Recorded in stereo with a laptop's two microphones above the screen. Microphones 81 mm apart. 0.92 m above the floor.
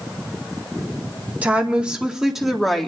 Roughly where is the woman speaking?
Centre.